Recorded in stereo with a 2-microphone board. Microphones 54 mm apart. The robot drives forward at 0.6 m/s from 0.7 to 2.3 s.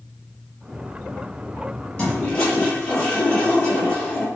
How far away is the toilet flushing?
About 5 m.